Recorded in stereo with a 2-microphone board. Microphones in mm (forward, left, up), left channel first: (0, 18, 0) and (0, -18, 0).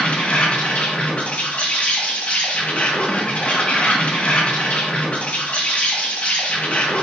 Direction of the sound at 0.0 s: 35° left (ahead or behind).